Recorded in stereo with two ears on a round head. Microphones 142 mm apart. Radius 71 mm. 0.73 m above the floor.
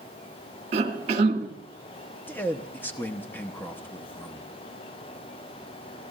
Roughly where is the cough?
Right.